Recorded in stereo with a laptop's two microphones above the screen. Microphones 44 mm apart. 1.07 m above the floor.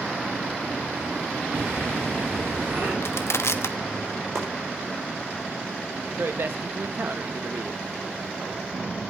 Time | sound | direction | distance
1.5 | breathing | 50° right (ahead or behind) | 5 m
3.0 | crushing | 70° left (ahead or behind) | 0.8 m
4.3 | chopping | 70° right (ahead or behind) | 4.5 m
6.2 | a man speaking | 50° right (ahead or behind) | 1.1 m